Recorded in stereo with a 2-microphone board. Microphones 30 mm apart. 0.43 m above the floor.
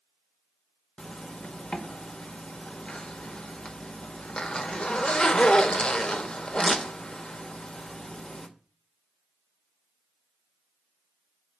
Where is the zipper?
35° left (ahead or behind), 0.8 m.